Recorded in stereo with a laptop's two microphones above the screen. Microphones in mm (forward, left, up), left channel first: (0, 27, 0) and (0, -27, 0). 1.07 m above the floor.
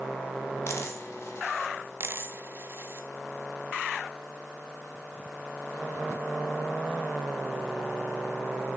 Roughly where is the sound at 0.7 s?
Left.